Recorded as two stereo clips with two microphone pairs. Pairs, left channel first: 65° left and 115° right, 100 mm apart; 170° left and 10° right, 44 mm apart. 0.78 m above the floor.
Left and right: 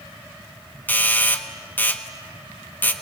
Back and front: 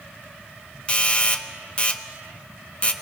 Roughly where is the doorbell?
Behind left.